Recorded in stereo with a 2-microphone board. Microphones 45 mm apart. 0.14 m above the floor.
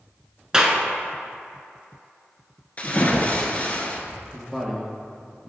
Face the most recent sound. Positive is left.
turn(degrees=0)  # may be behind; listen again after turning